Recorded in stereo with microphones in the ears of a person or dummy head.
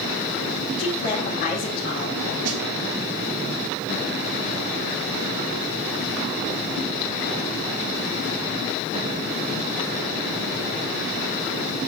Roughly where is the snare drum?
Right.